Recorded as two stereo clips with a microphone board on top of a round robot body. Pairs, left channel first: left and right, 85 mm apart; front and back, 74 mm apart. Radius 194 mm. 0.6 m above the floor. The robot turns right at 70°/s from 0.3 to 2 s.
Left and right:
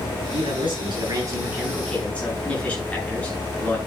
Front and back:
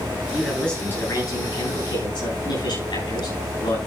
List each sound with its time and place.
0.3 s a man speaking: 105° right, 9 m; by 3.8 s 15° left, 9 m